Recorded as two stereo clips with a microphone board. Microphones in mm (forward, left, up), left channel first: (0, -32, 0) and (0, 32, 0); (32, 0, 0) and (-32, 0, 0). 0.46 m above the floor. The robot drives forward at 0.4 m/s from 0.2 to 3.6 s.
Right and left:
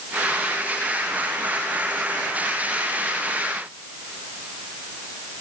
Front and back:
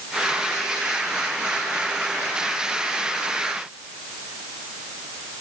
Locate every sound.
Only background noise.